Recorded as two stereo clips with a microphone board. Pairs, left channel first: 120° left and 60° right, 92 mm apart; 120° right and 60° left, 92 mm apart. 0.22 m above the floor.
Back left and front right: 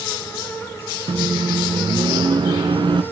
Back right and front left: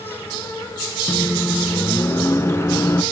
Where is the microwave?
65° right, 1.6 m.